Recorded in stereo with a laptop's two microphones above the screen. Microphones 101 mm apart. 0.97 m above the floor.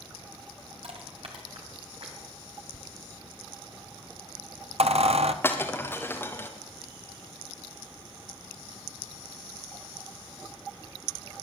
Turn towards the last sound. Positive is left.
turn(degrees=20)  # may be behind; listen again after turning